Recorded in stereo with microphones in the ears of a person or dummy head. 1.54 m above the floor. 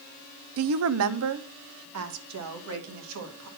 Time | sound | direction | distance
0.6 | a woman speaking | 65° right (ahead or behind) | 0.6 m